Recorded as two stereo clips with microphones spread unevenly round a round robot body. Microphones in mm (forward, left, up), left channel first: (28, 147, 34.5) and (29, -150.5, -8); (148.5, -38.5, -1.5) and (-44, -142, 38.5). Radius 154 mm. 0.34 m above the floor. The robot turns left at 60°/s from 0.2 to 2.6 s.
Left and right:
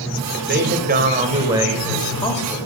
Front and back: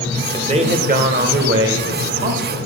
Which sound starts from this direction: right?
A man speaking, at 0.3 s.